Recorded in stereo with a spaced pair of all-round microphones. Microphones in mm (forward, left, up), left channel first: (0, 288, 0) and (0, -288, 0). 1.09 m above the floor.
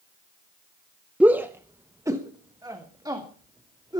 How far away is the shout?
About 0.6 m.